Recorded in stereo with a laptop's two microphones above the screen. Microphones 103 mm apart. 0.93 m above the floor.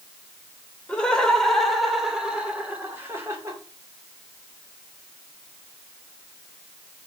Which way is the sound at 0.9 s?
10° left (ahead or behind).